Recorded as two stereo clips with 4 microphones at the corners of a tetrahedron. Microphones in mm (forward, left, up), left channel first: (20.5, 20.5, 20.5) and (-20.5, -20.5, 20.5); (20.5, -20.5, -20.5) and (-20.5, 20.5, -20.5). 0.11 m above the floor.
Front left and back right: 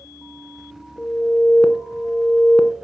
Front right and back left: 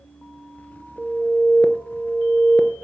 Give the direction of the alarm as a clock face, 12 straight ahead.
11 o'clock.